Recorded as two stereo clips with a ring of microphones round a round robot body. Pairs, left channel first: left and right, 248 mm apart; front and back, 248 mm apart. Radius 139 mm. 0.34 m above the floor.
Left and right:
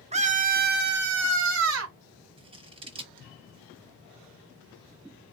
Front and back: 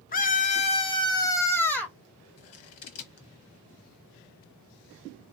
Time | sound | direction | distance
0.1 | a scream | 35° right | 1.2 m
2.4 | scissors | 20° right | 1.5 m